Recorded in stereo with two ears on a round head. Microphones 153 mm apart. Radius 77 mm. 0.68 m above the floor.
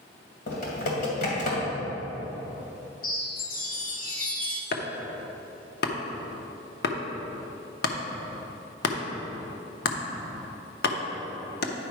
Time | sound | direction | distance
0.5 | typing on a keyboard | 50° left (ahead or behind) | 2.5 m
3.0 | a chime | 55° left (ahead or behind) | 0.9 m
4.7 | chopping | 60° left (ahead or behind) | 0.8 m